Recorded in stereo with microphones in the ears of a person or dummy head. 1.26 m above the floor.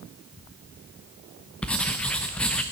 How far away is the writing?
About 0.8 m.